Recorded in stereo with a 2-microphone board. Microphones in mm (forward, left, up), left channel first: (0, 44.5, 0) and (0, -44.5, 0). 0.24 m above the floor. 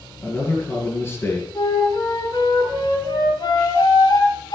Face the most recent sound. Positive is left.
turn(degrees=55)  # may be behind; listen again after turning